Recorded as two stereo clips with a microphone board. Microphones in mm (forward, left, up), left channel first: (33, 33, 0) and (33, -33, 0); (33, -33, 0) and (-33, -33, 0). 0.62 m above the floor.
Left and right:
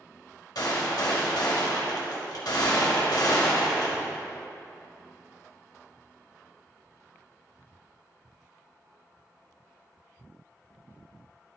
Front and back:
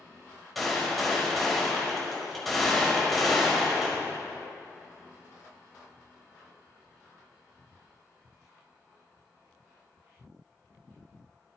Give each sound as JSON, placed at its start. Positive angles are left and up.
{"t": 0.6, "sound": "a gunshot", "azimuth_deg": 90, "distance_m": 1.7}